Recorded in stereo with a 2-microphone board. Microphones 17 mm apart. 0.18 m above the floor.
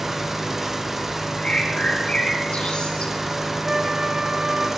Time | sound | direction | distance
0.0 | an engine running | 15° right (ahead or behind) | 2 m
1.4 | a bird | 75° left (ahead or behind) | 7.5 m
3.6 | a flute | 75° right (ahead or behind) | 3.5 m